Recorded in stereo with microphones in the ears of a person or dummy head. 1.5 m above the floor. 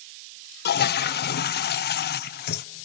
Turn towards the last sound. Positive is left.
turn(degrees=50)  # may be behind; listen again after turning